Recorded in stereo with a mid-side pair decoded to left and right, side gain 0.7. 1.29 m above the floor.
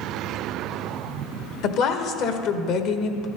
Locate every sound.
1.6 s a woman speaking: 60° left, 1.2 m